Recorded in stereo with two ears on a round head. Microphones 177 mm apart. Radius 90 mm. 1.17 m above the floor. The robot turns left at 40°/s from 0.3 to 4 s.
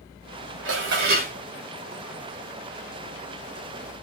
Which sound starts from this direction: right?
Dishes clattering, at 0.7 s.